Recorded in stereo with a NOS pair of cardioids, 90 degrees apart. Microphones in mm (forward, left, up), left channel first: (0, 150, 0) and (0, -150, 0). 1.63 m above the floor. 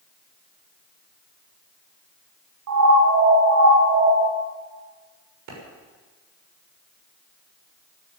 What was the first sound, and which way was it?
A siren, 65° right.